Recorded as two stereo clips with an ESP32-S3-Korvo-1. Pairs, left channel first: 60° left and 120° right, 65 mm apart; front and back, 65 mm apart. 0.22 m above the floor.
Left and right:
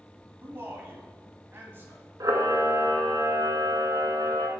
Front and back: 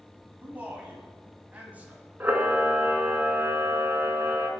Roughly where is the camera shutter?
Behind right.